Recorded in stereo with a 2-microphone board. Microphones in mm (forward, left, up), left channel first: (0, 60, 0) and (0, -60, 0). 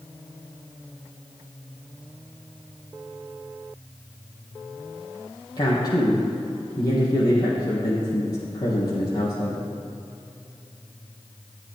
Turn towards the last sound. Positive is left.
turn(degrees=35)  # may be behind; listen again after turning